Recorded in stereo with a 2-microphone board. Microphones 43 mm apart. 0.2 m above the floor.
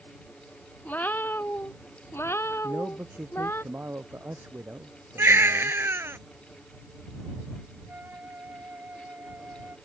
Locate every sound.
0.8 s a cat meowing: 40° left (ahead or behind); by 3.6 s 75° left (ahead or behind)
2.6 s a man speaking: 55° right (ahead or behind)
5.2 s a baby crying: 70° right (ahead or behind)
7.9 s a flute: 50° right (ahead or behind)